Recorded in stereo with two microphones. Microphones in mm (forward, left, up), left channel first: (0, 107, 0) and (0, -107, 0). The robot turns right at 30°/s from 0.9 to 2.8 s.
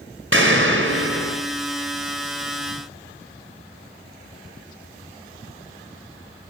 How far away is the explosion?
About 3 m.